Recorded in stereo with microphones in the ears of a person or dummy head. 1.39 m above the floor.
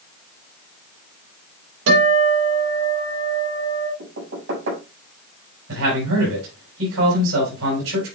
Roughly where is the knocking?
Right.